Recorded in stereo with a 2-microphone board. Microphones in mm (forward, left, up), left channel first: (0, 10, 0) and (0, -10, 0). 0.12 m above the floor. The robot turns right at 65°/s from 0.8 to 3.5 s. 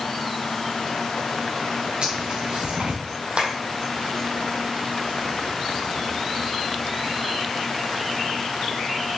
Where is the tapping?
60° right (ahead or behind), 2.5 m; by 3.5 s 55° right (ahead or behind), 2.5 m.